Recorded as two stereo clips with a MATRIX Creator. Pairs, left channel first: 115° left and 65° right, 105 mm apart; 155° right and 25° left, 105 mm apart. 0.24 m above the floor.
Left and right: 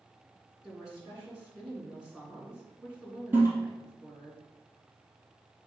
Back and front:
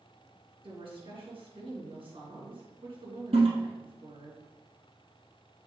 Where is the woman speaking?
15° left, 3 m.